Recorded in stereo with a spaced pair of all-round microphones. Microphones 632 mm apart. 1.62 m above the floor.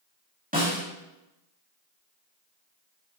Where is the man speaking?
No man speaking in this recording.